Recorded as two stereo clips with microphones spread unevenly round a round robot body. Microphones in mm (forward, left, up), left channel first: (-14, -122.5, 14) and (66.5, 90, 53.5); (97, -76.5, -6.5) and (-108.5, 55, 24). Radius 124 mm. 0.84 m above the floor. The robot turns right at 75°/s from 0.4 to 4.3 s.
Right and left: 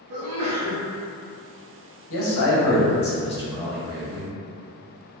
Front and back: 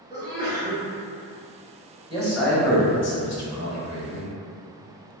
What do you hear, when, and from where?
0.1 s a sneeze: 75° left, 0.7 m; by 0.8 s 105° left, 0.7 m
2.1 s a man speaking: 140° right, 1.0 m; by 4.3 s 25° left, 1.0 m